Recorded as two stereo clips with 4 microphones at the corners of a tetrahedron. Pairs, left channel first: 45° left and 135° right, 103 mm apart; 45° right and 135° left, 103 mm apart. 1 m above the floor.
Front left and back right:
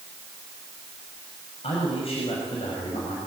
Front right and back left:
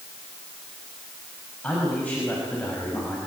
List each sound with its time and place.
1.6 s a man speaking: 30° left, 6.5 m